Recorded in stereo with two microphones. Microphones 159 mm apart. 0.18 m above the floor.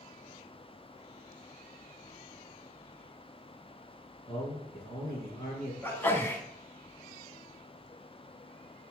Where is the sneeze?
15° left (ahead or behind), 1.2 m.